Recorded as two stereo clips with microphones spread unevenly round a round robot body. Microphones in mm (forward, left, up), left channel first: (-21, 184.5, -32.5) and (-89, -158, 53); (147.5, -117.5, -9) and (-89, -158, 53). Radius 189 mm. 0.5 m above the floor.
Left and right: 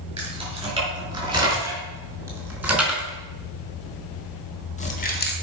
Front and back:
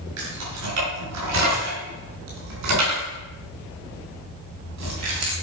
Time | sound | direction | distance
0.2 | keys jangling | 175° right | 6 m